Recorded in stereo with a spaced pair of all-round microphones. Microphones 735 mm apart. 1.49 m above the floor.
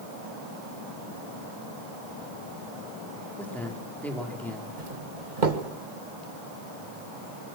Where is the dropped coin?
No dropped coin in this recording.